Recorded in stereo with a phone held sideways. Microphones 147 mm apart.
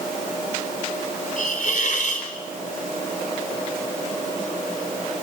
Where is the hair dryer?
I don't hear a hair dryer.